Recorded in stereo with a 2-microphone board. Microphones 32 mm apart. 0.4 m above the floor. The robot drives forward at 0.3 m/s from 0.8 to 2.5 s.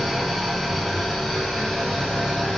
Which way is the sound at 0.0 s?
Centre (ahead or behind).